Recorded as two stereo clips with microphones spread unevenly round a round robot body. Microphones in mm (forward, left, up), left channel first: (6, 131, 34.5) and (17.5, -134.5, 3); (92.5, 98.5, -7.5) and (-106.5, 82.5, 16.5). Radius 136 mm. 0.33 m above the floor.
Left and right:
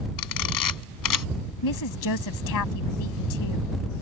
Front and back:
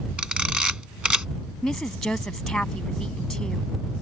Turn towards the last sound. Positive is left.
turn(degrees=90)